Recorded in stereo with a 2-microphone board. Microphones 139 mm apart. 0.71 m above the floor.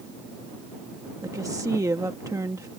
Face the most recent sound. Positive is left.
turn(degrees=-25)  # may be behind; listen again after turning